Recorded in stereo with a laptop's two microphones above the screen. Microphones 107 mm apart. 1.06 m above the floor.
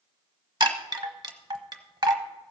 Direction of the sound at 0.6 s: 40° right (ahead or behind).